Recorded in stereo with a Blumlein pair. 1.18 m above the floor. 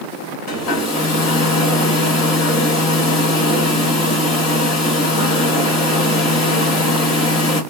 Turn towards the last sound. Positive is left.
turn(degrees=35)